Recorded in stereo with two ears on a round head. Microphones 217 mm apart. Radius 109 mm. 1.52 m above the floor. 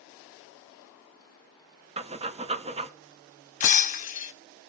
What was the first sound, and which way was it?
Breathing, 25° right (ahead or behind).